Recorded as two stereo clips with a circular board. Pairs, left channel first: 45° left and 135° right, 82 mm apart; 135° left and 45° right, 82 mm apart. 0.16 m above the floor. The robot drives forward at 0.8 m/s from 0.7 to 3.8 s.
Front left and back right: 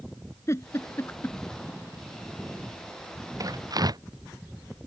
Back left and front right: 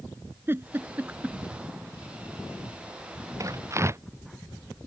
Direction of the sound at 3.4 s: 95° right.